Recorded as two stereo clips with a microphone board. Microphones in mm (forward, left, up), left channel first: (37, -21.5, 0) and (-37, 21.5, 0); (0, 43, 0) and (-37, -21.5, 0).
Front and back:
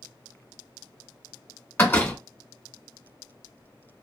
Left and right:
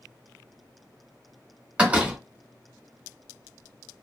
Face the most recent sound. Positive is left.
turn(degrees=-65)